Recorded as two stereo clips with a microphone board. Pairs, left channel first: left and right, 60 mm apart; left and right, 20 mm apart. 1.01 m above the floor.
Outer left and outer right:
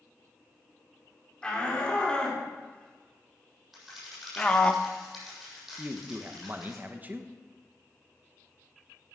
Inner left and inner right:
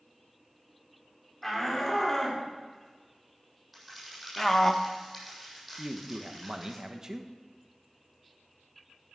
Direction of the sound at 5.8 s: 30° right (ahead or behind).